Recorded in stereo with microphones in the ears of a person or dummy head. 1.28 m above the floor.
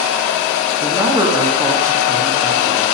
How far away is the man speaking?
About 2 m.